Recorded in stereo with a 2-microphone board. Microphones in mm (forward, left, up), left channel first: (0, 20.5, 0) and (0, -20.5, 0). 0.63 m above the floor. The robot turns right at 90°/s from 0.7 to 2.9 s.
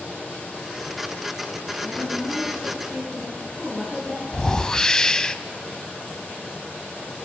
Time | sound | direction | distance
1.8 | a woman speaking | 90° left | 10 m
4.3 | a whoosh | 15° left (ahead or behind) | 0.8 m